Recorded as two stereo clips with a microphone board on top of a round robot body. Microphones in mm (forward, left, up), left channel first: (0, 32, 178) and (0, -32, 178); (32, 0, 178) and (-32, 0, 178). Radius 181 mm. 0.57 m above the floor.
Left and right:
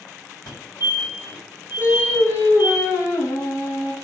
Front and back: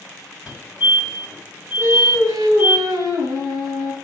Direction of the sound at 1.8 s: 145° left.